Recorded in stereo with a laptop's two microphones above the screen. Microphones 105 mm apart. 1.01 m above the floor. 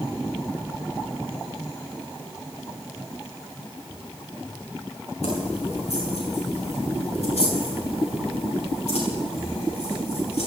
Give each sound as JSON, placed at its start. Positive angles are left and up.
{"t": 5.2, "sound": "keys jangling", "side_deg": 85, "distance_m": 8.0}